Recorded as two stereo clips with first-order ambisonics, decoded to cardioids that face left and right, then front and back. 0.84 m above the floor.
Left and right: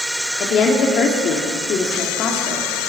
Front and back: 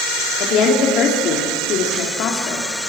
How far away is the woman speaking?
About 2.5 m.